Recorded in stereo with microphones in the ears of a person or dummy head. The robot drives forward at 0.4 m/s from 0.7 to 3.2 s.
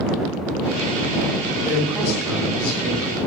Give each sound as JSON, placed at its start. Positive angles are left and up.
{"t": 1.6, "sound": "a man speaking", "side_deg": -5, "distance_m": 2.5}